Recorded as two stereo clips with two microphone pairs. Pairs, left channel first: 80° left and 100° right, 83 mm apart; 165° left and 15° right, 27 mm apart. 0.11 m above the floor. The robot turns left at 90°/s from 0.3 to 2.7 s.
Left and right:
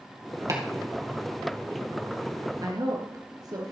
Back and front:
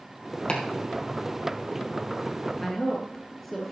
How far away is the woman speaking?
About 1.5 m.